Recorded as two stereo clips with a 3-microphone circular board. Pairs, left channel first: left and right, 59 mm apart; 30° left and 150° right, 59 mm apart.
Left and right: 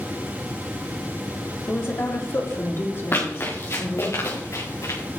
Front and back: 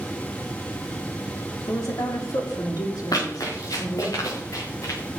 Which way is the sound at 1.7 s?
45° left.